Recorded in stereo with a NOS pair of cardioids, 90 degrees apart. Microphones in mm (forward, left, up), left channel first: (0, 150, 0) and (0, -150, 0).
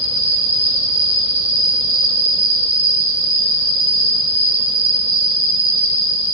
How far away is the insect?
About 1.9 m.